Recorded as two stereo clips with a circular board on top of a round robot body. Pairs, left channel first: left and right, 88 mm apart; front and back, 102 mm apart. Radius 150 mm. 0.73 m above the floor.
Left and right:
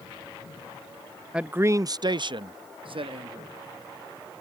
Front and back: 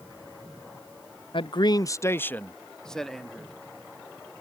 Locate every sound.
1.3 s a man speaking: 10° right; by 3.5 s 90° right